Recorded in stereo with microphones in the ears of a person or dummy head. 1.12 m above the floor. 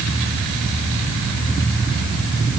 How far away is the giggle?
No giggle in this recording.